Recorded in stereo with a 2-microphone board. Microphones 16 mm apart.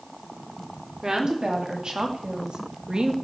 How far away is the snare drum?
No snare drum in this recording.